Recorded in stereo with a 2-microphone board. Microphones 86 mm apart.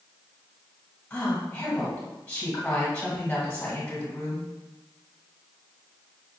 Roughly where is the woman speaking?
Centre.